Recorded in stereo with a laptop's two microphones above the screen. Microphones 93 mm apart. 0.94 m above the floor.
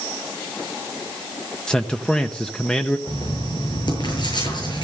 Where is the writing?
50° left (ahead or behind), 8 m.